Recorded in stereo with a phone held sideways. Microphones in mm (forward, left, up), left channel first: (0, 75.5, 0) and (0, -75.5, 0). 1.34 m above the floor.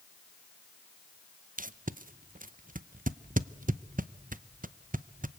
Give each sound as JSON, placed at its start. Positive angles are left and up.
{"t": 1.6, "sound": "tape being pulled", "side_deg": -60, "distance_m": 0.6}